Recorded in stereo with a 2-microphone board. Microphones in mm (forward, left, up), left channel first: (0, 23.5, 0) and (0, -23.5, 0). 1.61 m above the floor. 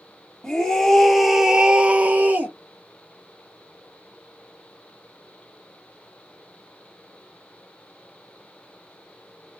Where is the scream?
15° left (ahead or behind), 1.0 m; by 2.5 s 40° right (ahead or behind), 0.6 m.